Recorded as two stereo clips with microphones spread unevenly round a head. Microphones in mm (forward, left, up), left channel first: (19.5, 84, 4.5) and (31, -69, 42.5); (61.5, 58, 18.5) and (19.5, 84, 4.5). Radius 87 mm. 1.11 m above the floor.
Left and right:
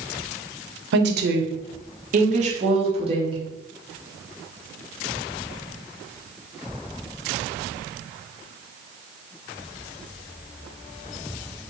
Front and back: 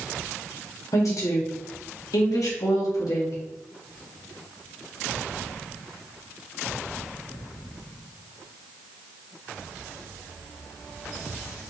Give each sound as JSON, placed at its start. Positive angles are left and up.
{"t": 0.9, "sound": "a woman speaking", "azimuth_deg": -85, "distance_m": 0.8}